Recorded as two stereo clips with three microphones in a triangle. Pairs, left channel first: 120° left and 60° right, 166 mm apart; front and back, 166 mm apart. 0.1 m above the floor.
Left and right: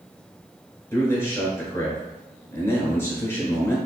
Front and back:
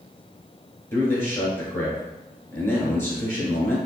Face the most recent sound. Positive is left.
turn(degrees=60)